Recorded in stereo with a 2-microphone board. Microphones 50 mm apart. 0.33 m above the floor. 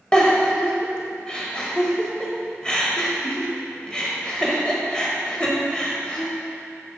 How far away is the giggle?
About 0.9 m.